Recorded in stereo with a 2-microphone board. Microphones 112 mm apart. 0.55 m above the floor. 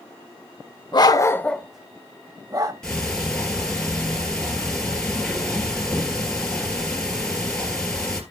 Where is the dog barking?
45° left (ahead or behind), 0.7 m; by 2.7 s 40° right (ahead or behind), 1.1 m.